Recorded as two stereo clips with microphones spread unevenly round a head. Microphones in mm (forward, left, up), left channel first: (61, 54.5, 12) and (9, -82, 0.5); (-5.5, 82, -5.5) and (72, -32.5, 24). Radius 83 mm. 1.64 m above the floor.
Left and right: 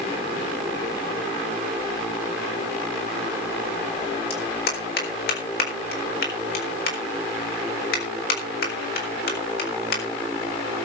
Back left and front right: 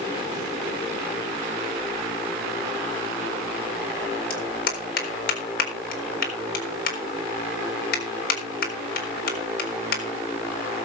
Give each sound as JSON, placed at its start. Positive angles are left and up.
{"t": 4.3, "sound": "a clap", "azimuth_deg": 105, "distance_m": 4.0}